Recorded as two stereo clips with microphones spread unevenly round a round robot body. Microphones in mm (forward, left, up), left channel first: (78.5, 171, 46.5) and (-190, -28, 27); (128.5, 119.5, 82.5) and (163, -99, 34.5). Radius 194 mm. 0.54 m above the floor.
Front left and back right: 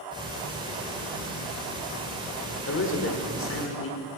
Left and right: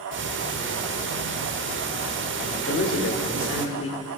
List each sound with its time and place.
0.1 s ticking: 65° right, 1.0 m
2.7 s a man speaking: 85° left, 1.6 m